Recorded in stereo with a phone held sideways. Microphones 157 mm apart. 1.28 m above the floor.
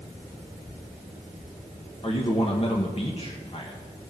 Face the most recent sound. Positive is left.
turn(degrees=40)  # may be behind; listen again after turning